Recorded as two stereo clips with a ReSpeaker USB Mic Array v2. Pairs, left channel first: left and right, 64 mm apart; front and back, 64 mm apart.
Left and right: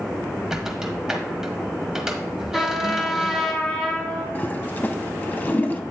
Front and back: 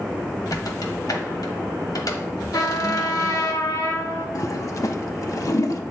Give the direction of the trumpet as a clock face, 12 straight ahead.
12 o'clock.